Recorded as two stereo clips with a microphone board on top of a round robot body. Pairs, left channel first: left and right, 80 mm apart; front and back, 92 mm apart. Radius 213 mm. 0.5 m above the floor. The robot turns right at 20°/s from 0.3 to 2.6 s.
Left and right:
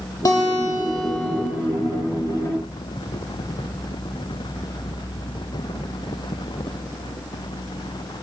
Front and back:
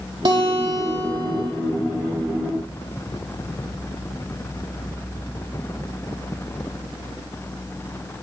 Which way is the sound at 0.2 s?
145° left.